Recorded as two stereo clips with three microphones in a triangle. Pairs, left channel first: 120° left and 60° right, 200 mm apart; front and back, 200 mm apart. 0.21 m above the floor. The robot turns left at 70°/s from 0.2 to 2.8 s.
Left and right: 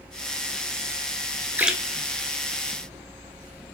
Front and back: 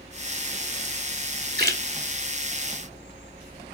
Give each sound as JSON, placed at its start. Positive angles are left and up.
{"t": 1.6, "sound": "a splash", "azimuth_deg": -140, "distance_m": 0.7}